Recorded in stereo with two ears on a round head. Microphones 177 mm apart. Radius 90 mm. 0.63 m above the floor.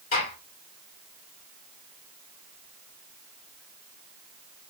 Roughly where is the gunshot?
Left.